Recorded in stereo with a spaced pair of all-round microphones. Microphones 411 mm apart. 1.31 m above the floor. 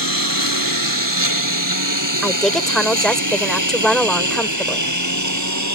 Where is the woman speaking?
Centre (ahead or behind).